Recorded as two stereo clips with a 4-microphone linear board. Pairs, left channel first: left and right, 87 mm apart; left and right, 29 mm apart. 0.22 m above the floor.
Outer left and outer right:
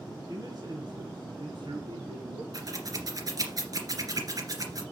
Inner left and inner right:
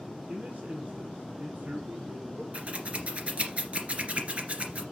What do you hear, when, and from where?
0.3 s a man speaking: 45° right (ahead or behind), 1.9 m; by 2.4 s 75° right (ahead or behind), 3 m
2.5 s scissors: 45° right (ahead or behind), 2 m